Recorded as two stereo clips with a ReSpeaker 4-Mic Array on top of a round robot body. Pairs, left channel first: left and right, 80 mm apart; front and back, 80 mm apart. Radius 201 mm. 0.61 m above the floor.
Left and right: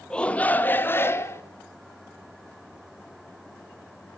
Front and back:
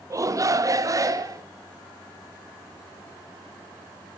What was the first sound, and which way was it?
A shout, 165° left.